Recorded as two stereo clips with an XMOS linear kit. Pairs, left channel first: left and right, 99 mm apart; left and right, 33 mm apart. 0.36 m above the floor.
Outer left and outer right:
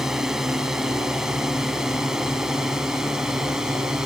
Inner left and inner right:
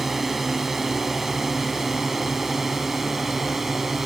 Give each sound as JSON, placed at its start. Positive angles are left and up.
{"t": 0.0, "sound": "a drone", "side_deg": -5}